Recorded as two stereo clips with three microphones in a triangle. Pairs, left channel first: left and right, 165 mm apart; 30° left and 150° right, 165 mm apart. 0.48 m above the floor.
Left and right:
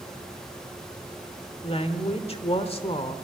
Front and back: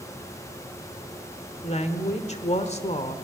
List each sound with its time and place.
1.6 s a woman speaking: 55° left, 1.5 m